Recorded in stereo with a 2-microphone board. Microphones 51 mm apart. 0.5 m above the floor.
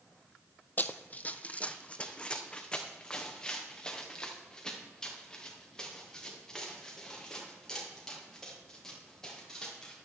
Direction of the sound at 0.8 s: 40° left (ahead or behind).